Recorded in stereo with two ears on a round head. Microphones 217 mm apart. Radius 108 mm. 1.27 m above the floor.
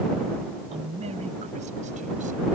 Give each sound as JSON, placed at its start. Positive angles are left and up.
{"t": 0.7, "sound": "a man speaking", "side_deg": -25}